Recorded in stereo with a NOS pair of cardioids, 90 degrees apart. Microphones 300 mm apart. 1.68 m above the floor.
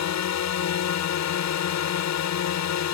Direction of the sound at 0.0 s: 65° left.